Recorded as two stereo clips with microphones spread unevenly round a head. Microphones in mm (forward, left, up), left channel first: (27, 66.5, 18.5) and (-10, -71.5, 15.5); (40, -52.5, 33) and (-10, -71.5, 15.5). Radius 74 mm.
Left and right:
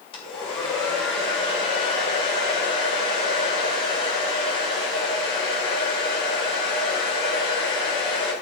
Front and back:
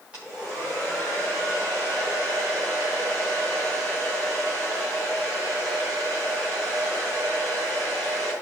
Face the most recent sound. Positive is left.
turn(degrees=130)